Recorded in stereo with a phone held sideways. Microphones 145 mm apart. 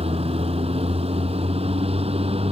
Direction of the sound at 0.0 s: 45° right (ahead or behind).